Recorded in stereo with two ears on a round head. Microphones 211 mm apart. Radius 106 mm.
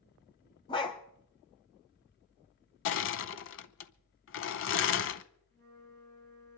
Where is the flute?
10° left (ahead or behind), 7 m.